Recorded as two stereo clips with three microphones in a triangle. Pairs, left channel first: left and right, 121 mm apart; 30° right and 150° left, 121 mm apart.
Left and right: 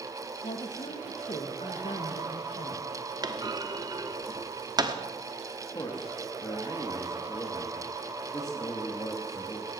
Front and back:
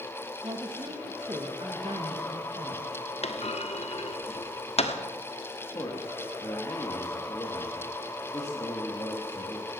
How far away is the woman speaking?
About 1.5 m.